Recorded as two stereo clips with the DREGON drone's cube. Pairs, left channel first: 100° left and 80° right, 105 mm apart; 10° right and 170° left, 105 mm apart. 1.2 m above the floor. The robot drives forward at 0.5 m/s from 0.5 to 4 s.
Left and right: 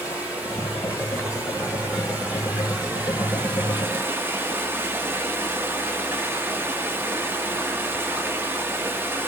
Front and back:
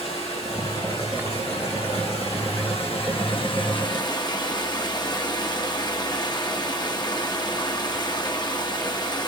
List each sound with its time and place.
0.0 s running water: 5° right, 2.5 m; by 9.3 s 15° right, 0.8 m